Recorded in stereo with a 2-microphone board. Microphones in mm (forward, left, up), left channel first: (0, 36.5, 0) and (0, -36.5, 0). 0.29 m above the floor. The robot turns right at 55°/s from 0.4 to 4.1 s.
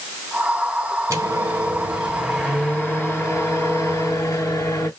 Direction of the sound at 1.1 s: 65° right.